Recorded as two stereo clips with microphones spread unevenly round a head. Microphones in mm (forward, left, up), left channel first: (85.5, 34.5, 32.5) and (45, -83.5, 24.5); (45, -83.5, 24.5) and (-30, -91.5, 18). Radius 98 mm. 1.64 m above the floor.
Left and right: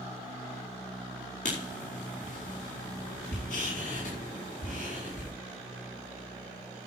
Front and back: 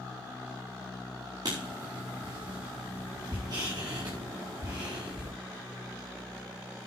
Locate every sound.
1.4 s writing: 120° left, 4 m